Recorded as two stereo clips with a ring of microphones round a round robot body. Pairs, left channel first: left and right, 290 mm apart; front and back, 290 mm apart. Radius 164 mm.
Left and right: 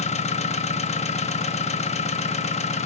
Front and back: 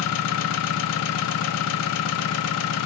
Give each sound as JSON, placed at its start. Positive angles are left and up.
{"t": 0.0, "sound": "an engine running", "azimuth_deg": 25, "distance_m": 0.7}